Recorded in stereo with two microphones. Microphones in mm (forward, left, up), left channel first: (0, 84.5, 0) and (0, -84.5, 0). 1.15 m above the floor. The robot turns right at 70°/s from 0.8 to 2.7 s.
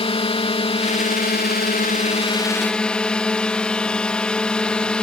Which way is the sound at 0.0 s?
40° left.